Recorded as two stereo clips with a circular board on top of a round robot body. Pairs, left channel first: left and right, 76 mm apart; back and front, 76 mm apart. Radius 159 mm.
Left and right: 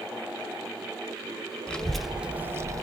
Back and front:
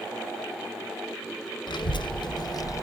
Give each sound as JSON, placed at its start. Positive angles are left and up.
{"t": 1.7, "sound": "a child speaking", "azimuth_deg": 165, "distance_m": 0.7}